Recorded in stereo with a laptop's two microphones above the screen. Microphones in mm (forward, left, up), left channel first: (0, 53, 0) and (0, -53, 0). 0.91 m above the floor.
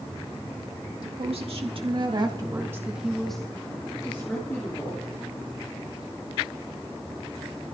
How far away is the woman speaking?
About 2 m.